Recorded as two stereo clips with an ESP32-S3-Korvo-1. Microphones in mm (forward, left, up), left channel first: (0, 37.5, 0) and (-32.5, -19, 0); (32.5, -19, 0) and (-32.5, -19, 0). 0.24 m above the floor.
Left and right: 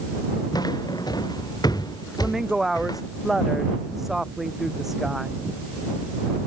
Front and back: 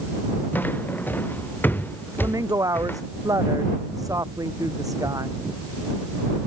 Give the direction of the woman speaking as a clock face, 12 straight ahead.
7 o'clock.